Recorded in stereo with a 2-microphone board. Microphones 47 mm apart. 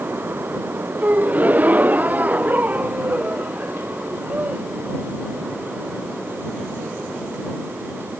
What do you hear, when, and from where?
1.0 s a gasp: 35° right (ahead or behind)